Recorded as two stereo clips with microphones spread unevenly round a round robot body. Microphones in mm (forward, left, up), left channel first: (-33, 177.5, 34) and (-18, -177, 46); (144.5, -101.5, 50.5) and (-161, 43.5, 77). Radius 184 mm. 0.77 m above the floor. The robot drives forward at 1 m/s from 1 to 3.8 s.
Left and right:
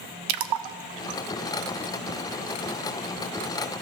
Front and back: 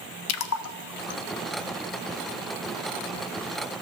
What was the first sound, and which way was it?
A splash, 70° right.